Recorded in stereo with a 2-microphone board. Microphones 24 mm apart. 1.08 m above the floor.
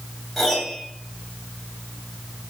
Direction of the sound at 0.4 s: Centre (ahead or behind).